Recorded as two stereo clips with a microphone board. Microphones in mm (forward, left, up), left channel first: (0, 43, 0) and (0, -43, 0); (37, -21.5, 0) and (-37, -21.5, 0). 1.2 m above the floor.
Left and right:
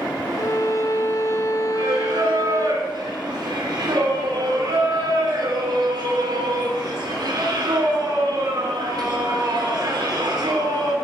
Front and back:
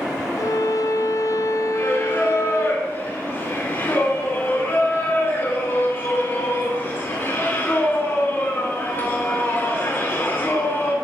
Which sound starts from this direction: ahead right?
Singing, at 1.7 s.